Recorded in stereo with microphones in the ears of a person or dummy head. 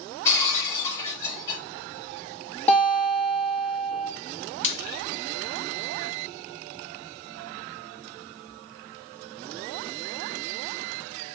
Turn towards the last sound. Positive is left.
turn(degrees=40)  # may be behind; listen again after turning